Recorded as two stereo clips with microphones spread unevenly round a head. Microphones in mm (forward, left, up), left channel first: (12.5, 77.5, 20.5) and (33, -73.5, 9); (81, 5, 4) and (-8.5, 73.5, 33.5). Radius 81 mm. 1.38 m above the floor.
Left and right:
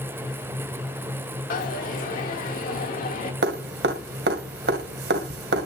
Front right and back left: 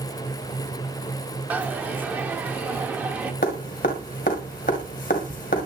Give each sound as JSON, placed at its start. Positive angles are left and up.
{"t": 1.5, "sound": "a dropped coin", "azimuth_deg": 75, "distance_m": 1.6}
{"t": 3.4, "sound": "dripping", "azimuth_deg": -80, "distance_m": 2.0}